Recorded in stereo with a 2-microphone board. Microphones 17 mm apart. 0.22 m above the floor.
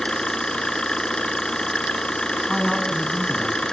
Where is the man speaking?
Centre (ahead or behind), 1.9 m.